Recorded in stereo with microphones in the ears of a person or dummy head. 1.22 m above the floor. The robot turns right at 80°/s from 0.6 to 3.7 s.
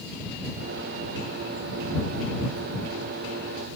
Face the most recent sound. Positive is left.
No sound to turn to.